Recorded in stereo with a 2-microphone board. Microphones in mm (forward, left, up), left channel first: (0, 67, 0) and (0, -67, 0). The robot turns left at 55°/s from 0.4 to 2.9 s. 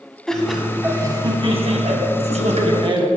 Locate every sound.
0.3 s laughter: 5° left, 1.8 m; by 3.1 s 135° right, 1.8 m